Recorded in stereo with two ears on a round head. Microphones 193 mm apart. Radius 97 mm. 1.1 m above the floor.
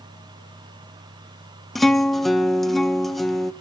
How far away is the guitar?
About 1.0 m.